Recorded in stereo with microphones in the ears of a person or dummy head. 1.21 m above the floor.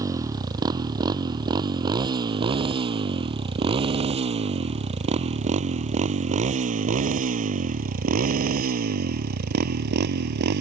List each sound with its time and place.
0.0 s a motorcycle: 25° right (ahead or behind); by 10.6 s 65° right (ahead or behind)